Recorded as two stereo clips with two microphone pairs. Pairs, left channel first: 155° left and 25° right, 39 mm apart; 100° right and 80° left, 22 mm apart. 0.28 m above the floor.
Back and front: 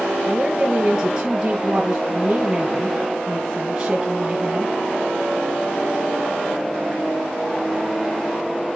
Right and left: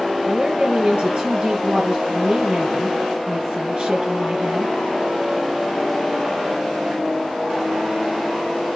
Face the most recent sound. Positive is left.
turn(degrees=40)